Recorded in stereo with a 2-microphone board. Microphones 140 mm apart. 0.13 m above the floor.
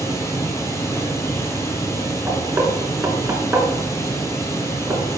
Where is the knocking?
15° right (ahead or behind), 1.0 m.